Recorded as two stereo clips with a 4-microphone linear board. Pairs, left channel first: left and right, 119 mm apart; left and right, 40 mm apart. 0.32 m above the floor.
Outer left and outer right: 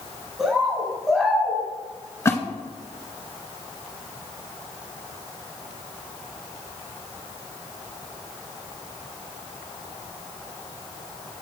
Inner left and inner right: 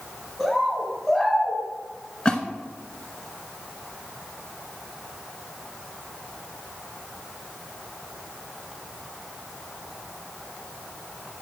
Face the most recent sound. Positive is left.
turn(degrees=25)  # may be behind; listen again after turning